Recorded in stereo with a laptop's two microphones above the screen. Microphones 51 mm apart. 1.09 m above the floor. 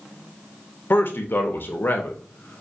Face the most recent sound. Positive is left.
turn(degrees=45)  # may be behind; listen again after turning